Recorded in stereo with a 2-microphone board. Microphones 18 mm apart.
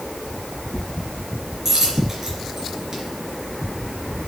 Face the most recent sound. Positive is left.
turn(degrees=-20)  # may be behind; listen again after turning